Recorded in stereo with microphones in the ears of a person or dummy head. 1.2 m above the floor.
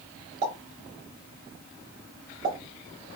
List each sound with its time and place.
0.4 s a pop: 50° right (ahead or behind), 1.1 m